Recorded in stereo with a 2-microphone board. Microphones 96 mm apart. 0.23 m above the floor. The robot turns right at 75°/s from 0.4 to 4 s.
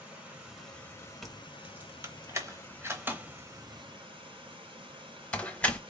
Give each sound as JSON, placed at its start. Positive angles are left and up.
{"t": 0.0, "sound": "running water", "azimuth_deg": -10, "distance_m": 1.8}
{"t": 1.2, "sound": "keys jangling", "side_deg": 0, "distance_m": 0.8}